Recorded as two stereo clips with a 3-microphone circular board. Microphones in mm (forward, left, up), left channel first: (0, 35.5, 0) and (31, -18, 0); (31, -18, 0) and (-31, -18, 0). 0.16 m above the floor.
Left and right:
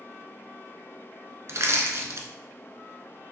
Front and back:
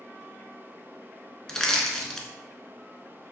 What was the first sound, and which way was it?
Crushing, 75° right.